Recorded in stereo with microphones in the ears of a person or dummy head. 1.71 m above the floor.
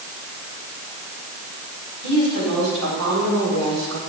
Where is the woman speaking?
65° right (ahead or behind), 6.5 m.